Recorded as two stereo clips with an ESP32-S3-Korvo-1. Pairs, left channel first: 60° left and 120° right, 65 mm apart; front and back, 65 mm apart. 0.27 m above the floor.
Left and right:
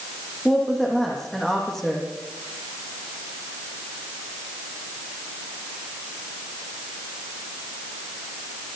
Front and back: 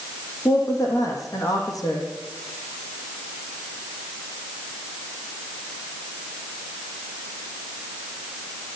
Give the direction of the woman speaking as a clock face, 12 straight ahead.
1 o'clock.